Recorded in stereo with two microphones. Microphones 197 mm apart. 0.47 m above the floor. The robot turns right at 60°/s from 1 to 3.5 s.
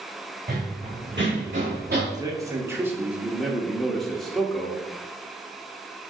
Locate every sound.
0.5 s running footsteps: 50° right (ahead or behind), 2.0 m; by 2.0 s 40° right (ahead or behind), 2 m
2.1 s a man speaking: 20° right (ahead or behind), 0.7 m; by 4.8 s centre (ahead or behind), 0.7 m